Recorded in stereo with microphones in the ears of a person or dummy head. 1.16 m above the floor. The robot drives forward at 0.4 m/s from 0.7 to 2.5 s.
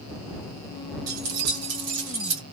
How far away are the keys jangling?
About 1.1 m.